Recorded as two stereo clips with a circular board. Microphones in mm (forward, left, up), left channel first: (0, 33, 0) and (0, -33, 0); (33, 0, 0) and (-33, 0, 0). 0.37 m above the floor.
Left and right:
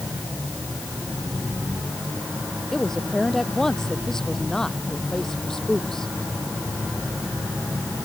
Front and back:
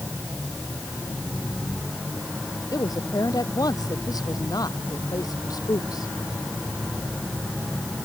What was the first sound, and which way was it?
A woman speaking, 10° left.